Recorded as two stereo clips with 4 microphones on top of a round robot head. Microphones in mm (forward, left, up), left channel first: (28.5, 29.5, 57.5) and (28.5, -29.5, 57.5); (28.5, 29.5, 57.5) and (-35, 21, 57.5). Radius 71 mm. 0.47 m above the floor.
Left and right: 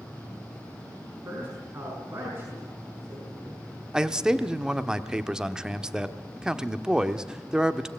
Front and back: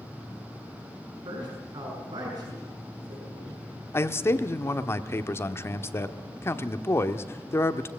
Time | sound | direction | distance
1.2 | a man speaking | 150° right | 5.5 m
3.9 | a man speaking | 15° right | 1.1 m